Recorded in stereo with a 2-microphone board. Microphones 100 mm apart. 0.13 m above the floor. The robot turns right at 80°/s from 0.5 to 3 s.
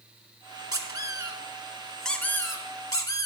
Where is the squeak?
100° right, 0.7 m; by 3.2 s 85° left, 0.7 m.